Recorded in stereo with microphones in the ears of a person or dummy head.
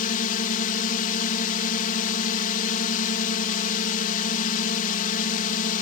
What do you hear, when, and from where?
0.0 s a drone: 45° left (ahead or behind)